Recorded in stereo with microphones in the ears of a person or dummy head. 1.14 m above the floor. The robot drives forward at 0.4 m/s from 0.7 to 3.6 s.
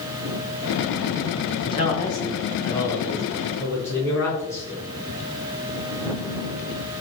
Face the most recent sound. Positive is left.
turn(degrees=15)  # may be behind; listen again after turning